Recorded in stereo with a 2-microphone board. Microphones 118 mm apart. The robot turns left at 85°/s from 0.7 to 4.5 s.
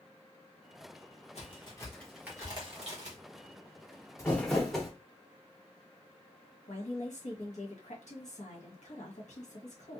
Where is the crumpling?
25° left (ahead or behind), 1.0 m; by 4.9 s centre (ahead or behind), 1.0 m.